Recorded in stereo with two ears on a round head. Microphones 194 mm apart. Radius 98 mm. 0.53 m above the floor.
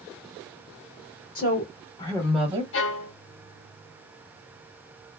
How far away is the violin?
About 0.8 m.